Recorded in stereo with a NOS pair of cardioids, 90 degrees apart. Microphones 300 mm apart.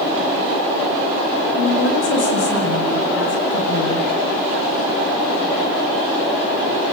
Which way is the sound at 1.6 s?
55° left.